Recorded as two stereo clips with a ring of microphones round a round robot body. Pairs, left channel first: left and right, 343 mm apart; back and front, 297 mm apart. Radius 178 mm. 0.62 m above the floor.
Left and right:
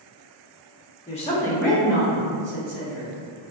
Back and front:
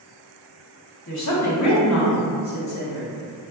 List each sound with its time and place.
1.1 s a woman speaking: 155° left, 1.2 m; by 3.1 s 145° right, 1.6 m